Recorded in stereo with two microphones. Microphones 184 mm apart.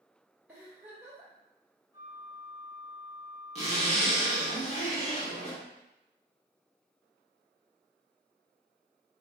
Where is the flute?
20° right (ahead or behind), 1.1 m.